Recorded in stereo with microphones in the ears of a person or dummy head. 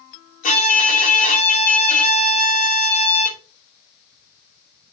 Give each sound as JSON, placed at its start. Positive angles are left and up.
{"t": 0.4, "sound": "a violin", "side_deg": 45, "distance_m": 2.5}